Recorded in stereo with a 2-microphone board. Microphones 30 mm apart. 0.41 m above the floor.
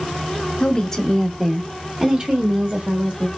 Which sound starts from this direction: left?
A woman speaking, at 0.6 s.